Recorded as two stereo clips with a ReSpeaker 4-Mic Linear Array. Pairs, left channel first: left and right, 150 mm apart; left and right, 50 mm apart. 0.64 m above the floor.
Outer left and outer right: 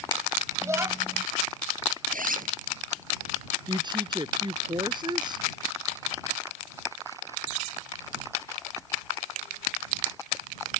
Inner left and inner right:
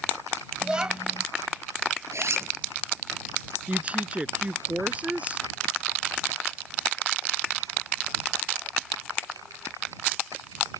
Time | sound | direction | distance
0.6 | a child speaking | 20° right (ahead or behind) | ?
2.1 | a zipper | 70° right (ahead or behind) | ?
3.7 | a woman speaking | 30° right (ahead or behind) | ?